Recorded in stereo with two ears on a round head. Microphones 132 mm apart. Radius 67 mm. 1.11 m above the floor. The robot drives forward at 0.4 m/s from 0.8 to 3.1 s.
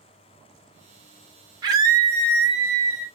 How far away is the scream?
About 1.0 m.